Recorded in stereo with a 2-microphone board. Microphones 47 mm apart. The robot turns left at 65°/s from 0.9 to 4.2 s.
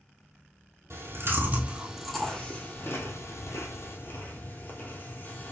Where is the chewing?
85° right, 1.3 m; by 5.5 s 50° left (ahead or behind), 1.3 m.